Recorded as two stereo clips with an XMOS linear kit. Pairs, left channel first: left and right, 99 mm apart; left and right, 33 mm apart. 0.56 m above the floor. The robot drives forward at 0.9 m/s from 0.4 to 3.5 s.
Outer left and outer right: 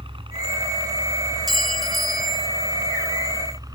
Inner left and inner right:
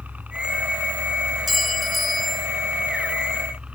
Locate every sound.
0.0 s a helicopter: 60° right (ahead or behind); by 3.8 s 40° right (ahead or behind)
1.5 s a clink: centre (ahead or behind)